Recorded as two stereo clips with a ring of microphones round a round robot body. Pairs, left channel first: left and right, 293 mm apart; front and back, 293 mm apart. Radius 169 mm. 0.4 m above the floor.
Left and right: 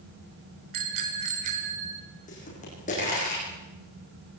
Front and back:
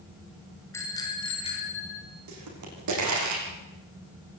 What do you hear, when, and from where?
0.7 s a bicycle bell: 80° right, 4 m; by 2.0 s 70° right, 6 m
2.3 s a pop: 160° left, 9.5 m